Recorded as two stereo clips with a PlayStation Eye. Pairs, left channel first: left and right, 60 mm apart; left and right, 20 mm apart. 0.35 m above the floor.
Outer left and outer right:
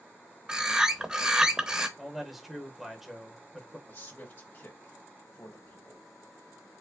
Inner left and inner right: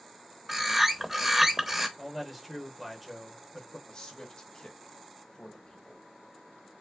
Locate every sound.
0.5 s a bird: 15° right (ahead or behind), 0.6 m
2.0 s a man speaking: 5° right (ahead or behind), 0.8 m
3.9 s a man speaking: 40° left (ahead or behind), 1.5 m